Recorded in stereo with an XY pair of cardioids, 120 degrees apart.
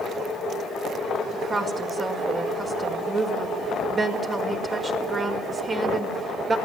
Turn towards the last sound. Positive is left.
turn(degrees=-30)